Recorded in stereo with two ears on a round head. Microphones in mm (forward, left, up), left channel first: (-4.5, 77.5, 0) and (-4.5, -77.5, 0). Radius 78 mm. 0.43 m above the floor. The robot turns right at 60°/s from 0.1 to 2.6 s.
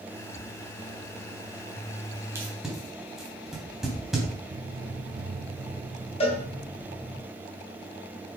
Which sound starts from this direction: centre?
Tape being pulled, at 2.4 s.